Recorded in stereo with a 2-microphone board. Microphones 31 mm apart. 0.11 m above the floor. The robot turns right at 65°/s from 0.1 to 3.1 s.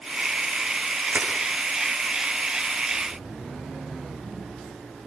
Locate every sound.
1.1 s crushing: 55° right (ahead or behind), 5 m; by 1.3 s 70° right (ahead or behind), 5 m